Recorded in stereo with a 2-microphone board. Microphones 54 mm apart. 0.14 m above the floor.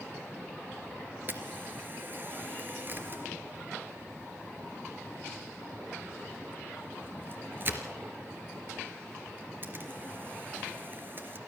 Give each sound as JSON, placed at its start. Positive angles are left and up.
{"t": 1.3, "sound": "a camera shutter", "side_deg": -40, "distance_m": 3.0}